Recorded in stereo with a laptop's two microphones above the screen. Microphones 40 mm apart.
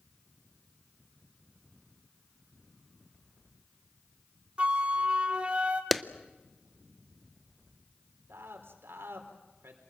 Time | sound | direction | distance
4.6 | a flute | 30° right (ahead or behind) | 1.3 m
5.9 | a clap | centre (ahead or behind) | 0.5 m
8.3 | a man speaking | 80° right | 4 m